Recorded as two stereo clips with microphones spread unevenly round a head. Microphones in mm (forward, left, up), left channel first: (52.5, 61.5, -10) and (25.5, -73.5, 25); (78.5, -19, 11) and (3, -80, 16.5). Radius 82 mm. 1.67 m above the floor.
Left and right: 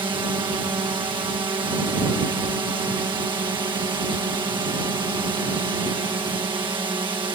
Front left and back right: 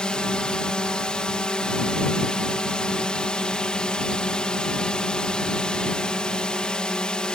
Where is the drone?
40° right.